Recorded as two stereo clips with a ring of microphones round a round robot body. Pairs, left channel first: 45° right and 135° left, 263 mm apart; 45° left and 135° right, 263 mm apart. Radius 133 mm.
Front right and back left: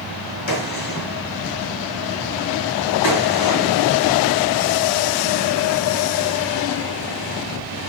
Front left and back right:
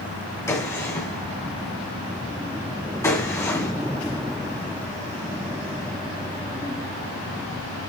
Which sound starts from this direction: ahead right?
A gunshot, at 0.5 s.